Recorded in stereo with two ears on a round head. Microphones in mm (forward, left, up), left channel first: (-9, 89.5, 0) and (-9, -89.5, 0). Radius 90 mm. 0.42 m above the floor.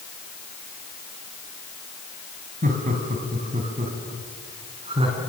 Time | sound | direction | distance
2.6 | laughter | 40° right (ahead or behind) | 4 m